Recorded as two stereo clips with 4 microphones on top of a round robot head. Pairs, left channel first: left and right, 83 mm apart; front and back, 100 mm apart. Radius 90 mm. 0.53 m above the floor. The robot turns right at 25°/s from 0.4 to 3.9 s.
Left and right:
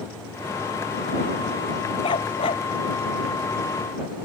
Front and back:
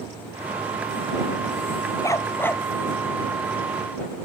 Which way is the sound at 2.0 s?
55° left.